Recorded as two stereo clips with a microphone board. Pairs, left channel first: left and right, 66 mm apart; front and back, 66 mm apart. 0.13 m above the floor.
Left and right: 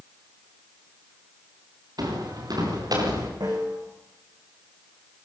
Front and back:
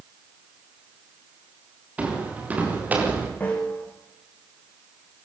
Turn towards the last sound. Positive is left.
turn(degrees=-70)